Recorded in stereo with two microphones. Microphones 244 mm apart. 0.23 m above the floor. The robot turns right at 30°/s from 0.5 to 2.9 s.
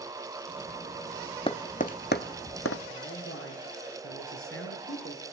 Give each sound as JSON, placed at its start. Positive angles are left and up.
{"t": 1.5, "sound": "tapping", "side_deg": 25, "distance_m": 0.8}
{"t": 2.9, "sound": "a man speaking", "side_deg": 60, "distance_m": 4.5}